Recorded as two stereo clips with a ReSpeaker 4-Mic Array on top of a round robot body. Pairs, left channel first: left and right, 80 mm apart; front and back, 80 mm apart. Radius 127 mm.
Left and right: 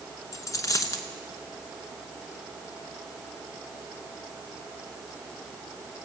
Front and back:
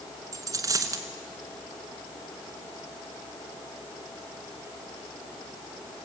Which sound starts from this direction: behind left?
A dropped coin, at 0.3 s.